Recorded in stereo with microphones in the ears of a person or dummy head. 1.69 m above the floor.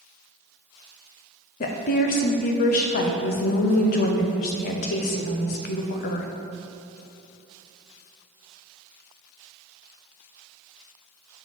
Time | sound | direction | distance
1.6 | a woman speaking | 40° left (ahead or behind) | 0.5 m